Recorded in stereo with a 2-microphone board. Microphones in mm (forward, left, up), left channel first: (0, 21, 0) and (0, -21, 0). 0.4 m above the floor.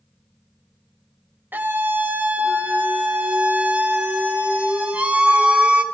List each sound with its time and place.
1.5 s a scream: 50° right (ahead or behind), 1.8 m; by 5.8 s 25° right (ahead or behind), 4 m